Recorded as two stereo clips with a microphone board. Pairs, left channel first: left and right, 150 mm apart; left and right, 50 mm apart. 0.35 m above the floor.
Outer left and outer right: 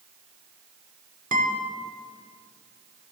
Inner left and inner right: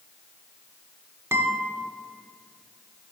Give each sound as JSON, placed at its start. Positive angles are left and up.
{"t": 1.3, "sound": "a guitar", "side_deg": -60, "distance_m": 0.7}